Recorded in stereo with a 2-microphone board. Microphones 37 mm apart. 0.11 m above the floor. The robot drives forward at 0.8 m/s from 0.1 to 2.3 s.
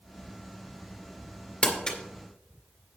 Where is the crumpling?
30° left (ahead or behind), 2.5 m; by 2.0 s 25° left (ahead or behind), 2.5 m.